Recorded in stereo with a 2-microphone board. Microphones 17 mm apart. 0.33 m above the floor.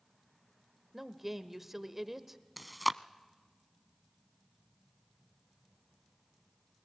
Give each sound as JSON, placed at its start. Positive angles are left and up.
{"t": 0.9, "sound": "a woman speaking", "side_deg": -15, "distance_m": 0.9}
{"t": 2.6, "sound": "chewing", "side_deg": -5, "distance_m": 0.5}